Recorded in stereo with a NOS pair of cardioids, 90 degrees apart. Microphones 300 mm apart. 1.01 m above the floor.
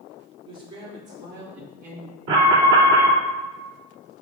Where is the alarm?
60° right, 2.5 m.